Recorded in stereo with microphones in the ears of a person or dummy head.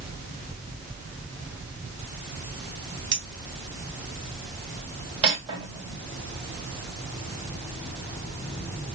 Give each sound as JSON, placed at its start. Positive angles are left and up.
{"t": 3.1, "sound": "a clink", "side_deg": -55, "distance_m": 1.2}
{"t": 5.2, "sound": "cutlery clinking", "side_deg": -30, "distance_m": 2.5}